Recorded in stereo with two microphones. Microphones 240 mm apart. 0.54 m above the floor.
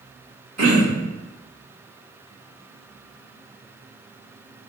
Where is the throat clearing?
65° right (ahead or behind), 1.2 m.